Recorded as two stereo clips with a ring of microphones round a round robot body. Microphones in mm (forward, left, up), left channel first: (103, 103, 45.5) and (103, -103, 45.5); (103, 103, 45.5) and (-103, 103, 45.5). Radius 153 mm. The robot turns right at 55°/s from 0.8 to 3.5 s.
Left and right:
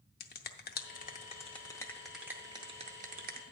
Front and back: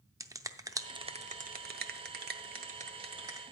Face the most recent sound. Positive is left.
turn(degrees=-100)